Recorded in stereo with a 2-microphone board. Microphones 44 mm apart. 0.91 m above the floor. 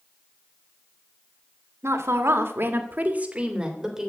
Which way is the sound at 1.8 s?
75° right (ahead or behind).